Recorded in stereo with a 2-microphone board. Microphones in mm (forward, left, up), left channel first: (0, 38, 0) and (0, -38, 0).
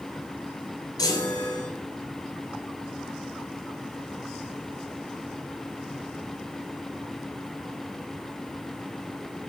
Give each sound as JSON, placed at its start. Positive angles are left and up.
{"t": 1.0, "sound": "a chime", "side_deg": 60, "distance_m": 2.0}